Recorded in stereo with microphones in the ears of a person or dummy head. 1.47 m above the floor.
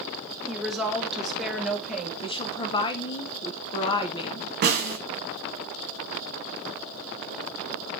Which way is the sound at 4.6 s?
45° right (ahead or behind).